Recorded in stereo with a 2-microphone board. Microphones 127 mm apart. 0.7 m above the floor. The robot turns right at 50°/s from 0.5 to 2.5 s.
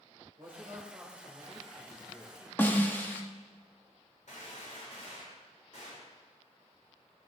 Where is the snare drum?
15° left (ahead or behind), 1.3 m.